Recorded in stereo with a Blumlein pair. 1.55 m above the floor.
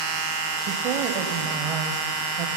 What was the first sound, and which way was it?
A woman speaking, 40° right.